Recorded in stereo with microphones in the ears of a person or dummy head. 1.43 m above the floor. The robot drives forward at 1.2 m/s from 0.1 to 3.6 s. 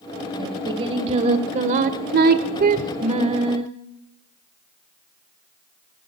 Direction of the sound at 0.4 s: 25° right (ahead or behind).